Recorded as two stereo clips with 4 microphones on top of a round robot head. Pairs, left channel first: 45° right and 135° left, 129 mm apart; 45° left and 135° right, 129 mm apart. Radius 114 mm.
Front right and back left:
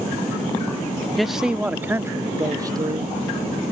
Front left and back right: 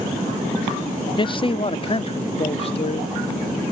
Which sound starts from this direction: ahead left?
A man speaking, at 1.2 s.